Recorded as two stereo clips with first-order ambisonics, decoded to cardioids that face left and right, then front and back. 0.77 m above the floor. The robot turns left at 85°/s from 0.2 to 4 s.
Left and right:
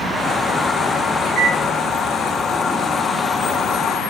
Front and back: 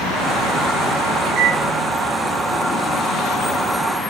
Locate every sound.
1.3 s a microwave: 165° left, 1.1 m; by 1.6 s 140° left, 1.1 m